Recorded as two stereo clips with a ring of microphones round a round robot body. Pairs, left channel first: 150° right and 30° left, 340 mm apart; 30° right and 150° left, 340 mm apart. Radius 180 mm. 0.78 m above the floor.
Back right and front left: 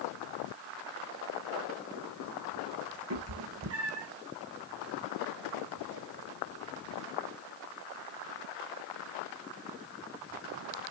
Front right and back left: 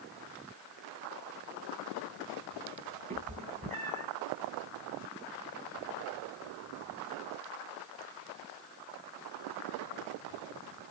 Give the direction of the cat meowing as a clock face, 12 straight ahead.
9 o'clock.